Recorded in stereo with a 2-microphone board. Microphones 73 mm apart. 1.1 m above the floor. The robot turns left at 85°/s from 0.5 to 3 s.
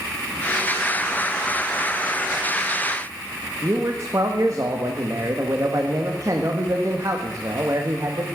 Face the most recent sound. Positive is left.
turn(degrees=-45)  # may be behind; listen again after turning